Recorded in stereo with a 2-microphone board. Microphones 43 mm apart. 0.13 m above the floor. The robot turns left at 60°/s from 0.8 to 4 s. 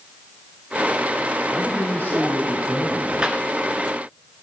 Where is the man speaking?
150° left, 5.5 m; by 3.1 s 55° left, 5.5 m.